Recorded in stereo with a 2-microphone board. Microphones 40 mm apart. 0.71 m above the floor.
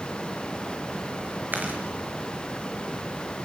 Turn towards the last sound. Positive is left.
turn(degrees=-50)  # may be behind; listen again after turning